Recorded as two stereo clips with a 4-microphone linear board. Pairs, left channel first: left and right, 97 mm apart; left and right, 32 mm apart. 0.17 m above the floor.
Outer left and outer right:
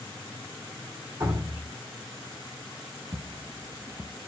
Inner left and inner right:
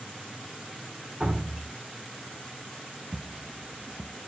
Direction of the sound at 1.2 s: 30° right (ahead or behind).